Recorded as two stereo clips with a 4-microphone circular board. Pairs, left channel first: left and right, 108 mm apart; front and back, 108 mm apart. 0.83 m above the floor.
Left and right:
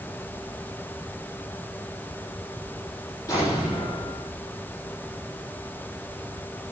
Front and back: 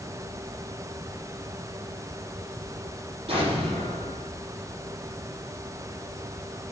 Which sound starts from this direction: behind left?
An explosion, at 3.3 s.